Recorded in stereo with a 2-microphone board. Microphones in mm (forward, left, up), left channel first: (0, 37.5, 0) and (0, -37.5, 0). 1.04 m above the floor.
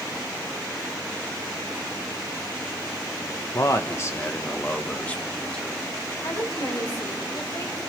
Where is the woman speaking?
60° left (ahead or behind), 5 m.